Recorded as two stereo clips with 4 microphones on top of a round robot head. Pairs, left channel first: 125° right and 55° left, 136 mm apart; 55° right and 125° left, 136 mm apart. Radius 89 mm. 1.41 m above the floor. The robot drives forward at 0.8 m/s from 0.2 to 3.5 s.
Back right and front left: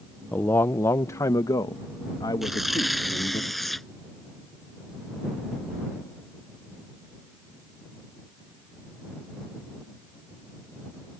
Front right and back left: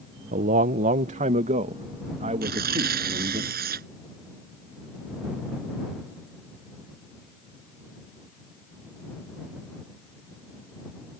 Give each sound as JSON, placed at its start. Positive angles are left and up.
{"t": 0.3, "sound": "a man speaking", "azimuth_deg": 155}
{"t": 2.4, "sound": "tearing paper", "azimuth_deg": 140}